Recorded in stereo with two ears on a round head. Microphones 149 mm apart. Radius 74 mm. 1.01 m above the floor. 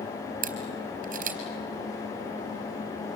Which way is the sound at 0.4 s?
50° right (ahead or behind).